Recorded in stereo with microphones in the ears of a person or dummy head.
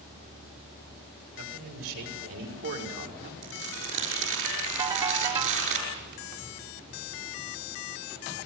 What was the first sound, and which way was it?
A man speaking, 60° right (ahead or behind).